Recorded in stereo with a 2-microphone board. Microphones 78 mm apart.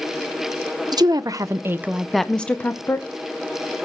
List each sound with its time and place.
0.9 s a woman speaking: 60° right (ahead or behind), 0.9 m; by 3.1 s 30° left (ahead or behind), 1.1 m